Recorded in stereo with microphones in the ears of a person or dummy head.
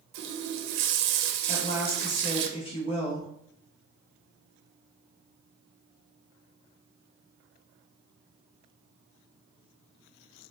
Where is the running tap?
65° right (ahead or behind), 0.5 m.